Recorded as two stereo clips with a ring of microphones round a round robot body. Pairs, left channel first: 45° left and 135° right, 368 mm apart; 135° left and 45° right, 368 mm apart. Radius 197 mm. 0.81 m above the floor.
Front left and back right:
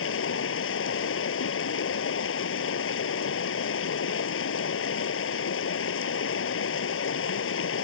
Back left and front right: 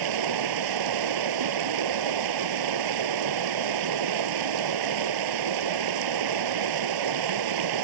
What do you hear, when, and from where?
0.0 s running water: 15° right